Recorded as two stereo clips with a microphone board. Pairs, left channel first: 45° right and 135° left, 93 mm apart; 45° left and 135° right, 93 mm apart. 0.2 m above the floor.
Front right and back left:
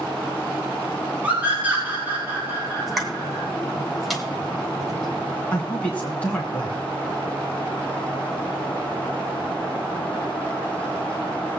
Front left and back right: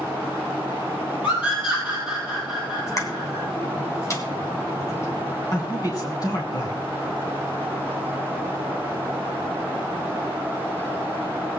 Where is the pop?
45° left, 1.9 m.